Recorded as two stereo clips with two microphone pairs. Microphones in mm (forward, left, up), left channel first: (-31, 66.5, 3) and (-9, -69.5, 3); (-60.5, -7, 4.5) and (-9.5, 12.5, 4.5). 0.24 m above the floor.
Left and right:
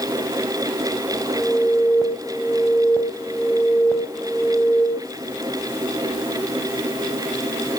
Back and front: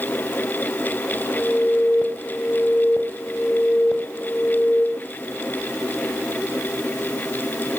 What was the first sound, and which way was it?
An alarm, 170° left.